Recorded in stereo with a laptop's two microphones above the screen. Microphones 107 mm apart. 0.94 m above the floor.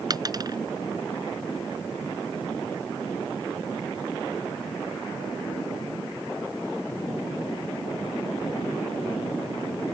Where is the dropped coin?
40° right (ahead or behind).